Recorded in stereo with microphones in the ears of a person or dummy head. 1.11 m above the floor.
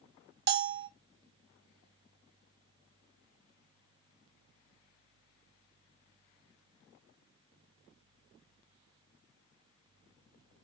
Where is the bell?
50° right (ahead or behind), 0.6 m.